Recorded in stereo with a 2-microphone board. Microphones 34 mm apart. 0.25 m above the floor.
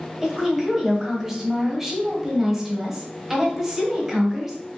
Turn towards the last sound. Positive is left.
turn(degrees=-15)  # may be behind; listen again after turning